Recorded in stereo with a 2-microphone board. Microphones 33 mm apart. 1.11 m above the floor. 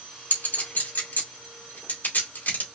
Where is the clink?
70° left (ahead or behind), 2.5 m.